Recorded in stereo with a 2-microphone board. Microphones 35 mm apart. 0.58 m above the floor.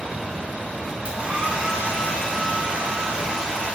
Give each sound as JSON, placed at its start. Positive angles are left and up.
{"t": 1.1, "sound": "a hair dryer", "side_deg": -35, "distance_m": 1.1}